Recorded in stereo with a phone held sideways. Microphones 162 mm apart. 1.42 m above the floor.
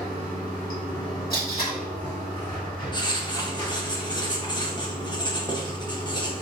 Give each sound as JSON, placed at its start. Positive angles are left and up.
{"t": 0.0, "sound": "running water", "side_deg": 30, "distance_m": 1.4}
{"t": 1.3, "sound": "tape being pulled", "side_deg": 65, "distance_m": 1.4}
{"t": 2.9, "sound": "writing", "side_deg": 25, "distance_m": 0.6}